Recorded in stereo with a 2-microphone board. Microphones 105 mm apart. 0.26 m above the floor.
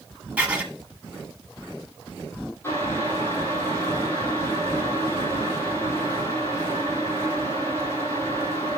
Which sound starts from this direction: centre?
Writing, at 0.4 s.